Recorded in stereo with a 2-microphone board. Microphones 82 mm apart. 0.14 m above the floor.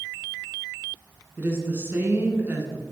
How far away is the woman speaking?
About 1.8 m.